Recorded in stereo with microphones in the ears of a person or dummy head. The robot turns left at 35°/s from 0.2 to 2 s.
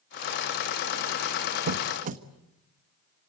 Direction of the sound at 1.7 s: 50° right (ahead or behind).